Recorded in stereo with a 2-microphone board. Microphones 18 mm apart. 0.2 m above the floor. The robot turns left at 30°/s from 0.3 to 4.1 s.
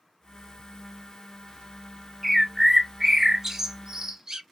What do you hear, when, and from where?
2.2 s a bird: 5° right (ahead or behind), 0.6 m; by 4.4 s 35° right (ahead or behind), 0.6 m